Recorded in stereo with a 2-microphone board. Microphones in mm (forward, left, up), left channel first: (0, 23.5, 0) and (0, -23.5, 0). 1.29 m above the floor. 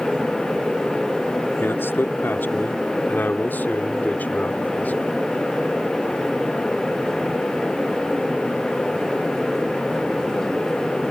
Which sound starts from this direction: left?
A man speaking, at 1.6 s.